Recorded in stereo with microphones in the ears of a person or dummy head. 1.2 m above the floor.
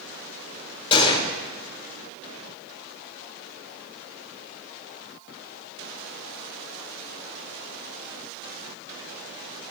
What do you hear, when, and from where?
0.9 s a gunshot: 35° left (ahead or behind), 1.7 m